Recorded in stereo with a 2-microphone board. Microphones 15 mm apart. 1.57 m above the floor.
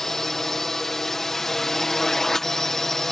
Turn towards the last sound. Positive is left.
turn(degrees=20)  # may be behind; listen again after turning